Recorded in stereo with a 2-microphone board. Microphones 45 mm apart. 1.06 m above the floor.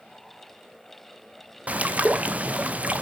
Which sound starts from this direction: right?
A bird, at 1.7 s.